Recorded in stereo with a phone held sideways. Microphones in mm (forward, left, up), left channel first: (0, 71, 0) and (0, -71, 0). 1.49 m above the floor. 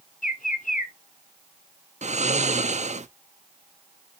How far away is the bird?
About 1.0 m.